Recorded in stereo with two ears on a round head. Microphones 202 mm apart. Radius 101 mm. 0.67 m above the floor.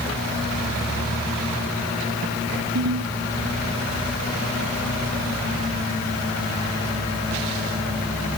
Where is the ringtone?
85° right.